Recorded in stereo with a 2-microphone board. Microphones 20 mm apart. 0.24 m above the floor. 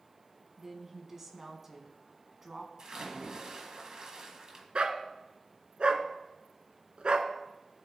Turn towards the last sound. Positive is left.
turn(degrees=-65)  # may be behind; listen again after turning